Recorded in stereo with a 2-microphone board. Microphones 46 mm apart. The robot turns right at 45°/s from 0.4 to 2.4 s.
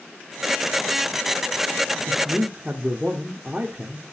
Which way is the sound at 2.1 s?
5° right (ahead or behind).